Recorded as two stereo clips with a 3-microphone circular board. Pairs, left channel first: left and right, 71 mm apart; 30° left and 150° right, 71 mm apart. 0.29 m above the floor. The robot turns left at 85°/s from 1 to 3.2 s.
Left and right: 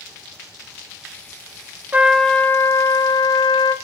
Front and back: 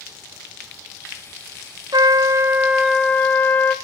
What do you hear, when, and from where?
1.9 s a trumpet: 160° right, 0.6 m; by 3.8 s 95° left, 0.6 m